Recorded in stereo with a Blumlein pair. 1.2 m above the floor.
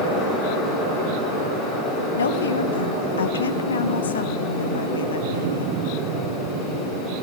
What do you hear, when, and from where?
0.0 s a fan: 35° left, 6 m
2.2 s a woman speaking: 70° left, 0.8 m